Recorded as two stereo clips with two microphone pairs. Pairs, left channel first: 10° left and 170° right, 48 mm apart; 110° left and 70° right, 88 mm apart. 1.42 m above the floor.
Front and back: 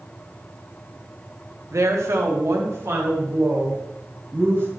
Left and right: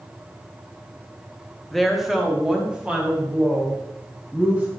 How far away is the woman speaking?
About 1.2 m.